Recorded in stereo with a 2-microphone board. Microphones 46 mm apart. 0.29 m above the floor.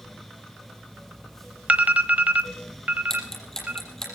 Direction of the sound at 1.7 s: 35° right (ahead or behind).